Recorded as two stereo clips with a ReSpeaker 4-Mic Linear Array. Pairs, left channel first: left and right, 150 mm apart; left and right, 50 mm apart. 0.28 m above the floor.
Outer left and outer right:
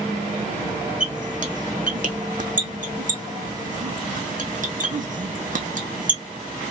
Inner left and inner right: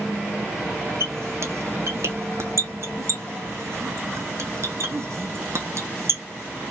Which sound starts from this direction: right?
A squeak, at 1.0 s.